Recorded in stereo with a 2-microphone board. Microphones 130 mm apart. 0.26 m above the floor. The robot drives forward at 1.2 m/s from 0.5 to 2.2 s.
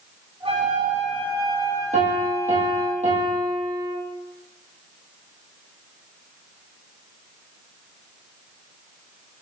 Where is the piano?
65° right (ahead or behind), 3 m; by 4.0 s 70° right (ahead or behind), 3 m.